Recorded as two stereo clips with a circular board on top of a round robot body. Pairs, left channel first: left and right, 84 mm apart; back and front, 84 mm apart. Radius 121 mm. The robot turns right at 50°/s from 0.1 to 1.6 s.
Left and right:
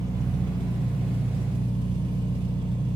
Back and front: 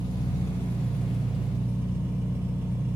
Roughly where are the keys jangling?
No keys jangling in this recording.